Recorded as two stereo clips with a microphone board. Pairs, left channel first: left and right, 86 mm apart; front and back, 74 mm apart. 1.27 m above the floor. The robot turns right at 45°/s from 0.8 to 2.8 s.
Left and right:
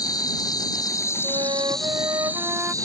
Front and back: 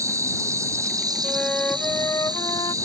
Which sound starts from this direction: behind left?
An insect, at 0.0 s.